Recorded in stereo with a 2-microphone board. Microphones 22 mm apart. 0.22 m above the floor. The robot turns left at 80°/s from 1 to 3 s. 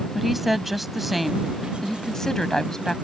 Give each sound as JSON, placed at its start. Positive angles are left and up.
{"t": 0.1, "sound": "a woman speaking", "side_deg": -5}